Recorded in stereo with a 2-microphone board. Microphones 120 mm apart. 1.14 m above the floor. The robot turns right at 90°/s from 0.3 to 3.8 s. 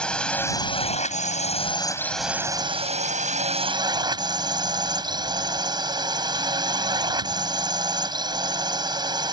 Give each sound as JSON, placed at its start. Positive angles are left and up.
{"t": 0.0, "sound": "a drone", "azimuth_deg": 10}